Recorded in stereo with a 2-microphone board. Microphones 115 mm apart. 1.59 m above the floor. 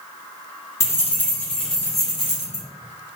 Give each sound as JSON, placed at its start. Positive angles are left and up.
{"t": 0.8, "sound": "keys jangling", "side_deg": 25, "distance_m": 0.9}